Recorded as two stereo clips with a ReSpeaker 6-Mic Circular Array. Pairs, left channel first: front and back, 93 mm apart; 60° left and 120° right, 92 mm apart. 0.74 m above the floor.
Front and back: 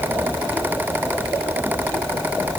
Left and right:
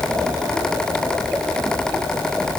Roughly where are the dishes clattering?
I don't hear dishes clattering.